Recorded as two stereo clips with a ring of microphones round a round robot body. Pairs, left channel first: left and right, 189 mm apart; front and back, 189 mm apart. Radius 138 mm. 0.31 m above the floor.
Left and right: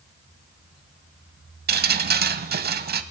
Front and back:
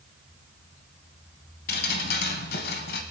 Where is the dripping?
50° right, 0.7 m.